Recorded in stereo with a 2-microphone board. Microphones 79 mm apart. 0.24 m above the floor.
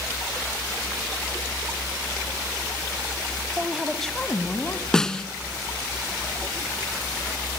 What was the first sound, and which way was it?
A woman speaking, 20° right (ahead or behind).